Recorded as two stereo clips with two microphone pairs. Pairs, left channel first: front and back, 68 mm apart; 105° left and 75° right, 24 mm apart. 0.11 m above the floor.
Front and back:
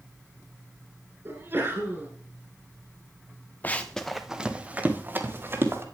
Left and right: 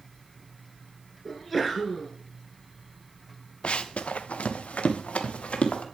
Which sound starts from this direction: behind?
A sneeze, at 1.2 s.